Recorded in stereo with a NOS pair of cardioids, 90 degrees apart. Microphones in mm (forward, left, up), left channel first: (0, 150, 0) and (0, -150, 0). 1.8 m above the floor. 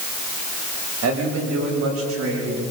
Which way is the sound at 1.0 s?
60° right.